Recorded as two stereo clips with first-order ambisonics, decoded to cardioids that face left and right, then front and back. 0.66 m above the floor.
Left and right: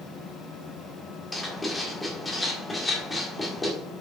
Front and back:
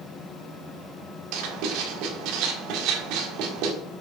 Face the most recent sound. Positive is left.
turn(degrees=170)